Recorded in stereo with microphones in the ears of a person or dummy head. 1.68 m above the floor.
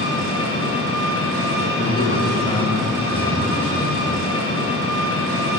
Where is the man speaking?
25° left (ahead or behind), 1.7 m.